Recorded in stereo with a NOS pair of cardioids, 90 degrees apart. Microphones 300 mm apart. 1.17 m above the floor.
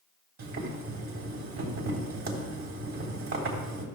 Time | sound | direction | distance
0.4 | boiling | 65° right | 3.5 m